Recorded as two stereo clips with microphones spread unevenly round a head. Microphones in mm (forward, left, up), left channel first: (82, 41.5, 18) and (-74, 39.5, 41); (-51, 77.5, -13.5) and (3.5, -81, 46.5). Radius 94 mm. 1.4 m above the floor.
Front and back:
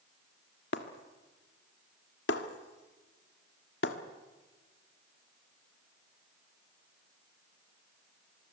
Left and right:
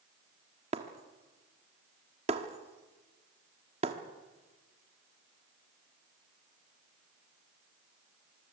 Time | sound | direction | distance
0.7 | breaking glass | 35° right | 1.5 m